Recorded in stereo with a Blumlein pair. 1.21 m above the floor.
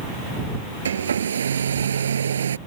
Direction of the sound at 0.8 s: 70° right.